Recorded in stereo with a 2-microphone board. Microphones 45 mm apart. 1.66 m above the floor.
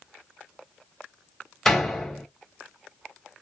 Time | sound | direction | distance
1.6 | a door slam | 10° left (ahead or behind) | 1.7 m